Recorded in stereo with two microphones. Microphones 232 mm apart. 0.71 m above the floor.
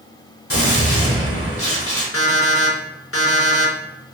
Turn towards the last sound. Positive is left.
turn(degrees=75)  # may be behind; listen again after turning